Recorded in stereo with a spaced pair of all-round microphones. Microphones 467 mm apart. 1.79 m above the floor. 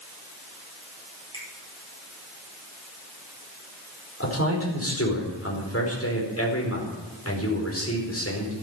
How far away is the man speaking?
About 4.5 m.